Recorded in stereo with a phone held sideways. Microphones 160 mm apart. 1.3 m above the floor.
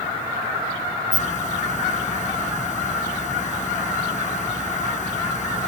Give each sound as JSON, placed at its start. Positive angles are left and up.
{"t": 1.1, "sound": "a hiss", "side_deg": 50}